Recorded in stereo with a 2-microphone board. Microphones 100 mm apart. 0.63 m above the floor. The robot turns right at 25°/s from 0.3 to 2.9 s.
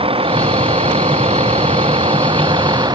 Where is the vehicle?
115° right; by 3.0 s 50° right.